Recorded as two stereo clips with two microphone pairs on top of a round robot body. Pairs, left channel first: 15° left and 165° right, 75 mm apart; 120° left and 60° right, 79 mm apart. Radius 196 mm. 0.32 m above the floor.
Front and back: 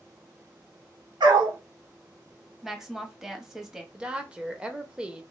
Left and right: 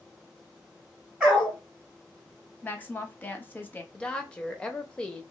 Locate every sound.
1.2 s a dog barking: 145° right, 1.1 m
2.6 s a woman speaking: 115° left, 1.1 m
3.9 s a woman speaking: 145° left, 1.0 m